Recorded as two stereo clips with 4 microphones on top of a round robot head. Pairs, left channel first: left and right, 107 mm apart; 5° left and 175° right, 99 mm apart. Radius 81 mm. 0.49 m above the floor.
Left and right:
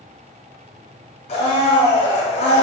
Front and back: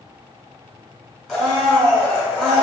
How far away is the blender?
About 1.3 m.